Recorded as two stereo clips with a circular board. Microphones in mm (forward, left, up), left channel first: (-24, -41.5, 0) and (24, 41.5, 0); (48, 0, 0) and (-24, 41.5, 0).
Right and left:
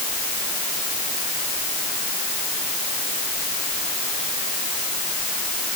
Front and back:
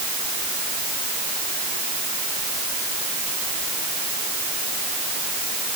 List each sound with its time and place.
Only background noise.